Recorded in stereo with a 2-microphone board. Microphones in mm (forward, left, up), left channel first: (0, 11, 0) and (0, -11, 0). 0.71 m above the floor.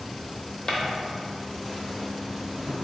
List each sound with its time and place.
0.7 s footsteps: 40° left (ahead or behind), 0.9 m; by 2.8 s 40° right (ahead or behind), 0.9 m